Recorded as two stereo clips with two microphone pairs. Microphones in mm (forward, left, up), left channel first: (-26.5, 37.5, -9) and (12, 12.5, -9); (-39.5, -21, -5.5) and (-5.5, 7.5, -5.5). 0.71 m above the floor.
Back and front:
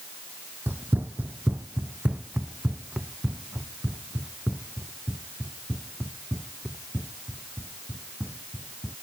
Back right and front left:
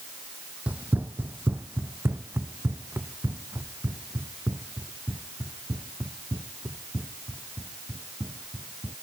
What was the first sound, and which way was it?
Running footsteps, 5° right.